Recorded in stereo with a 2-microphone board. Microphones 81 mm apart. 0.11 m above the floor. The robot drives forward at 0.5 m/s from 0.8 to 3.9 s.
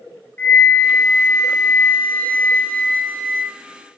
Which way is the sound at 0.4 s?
20° left (ahead or behind).